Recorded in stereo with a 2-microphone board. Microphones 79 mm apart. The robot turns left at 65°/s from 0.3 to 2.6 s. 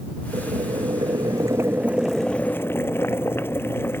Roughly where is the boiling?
Ahead right.